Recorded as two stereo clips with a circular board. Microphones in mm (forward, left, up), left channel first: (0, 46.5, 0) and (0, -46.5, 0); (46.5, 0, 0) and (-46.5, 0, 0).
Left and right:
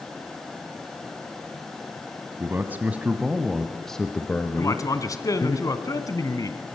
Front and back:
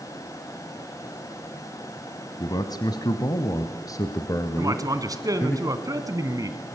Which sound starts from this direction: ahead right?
A man speaking, at 2.4 s.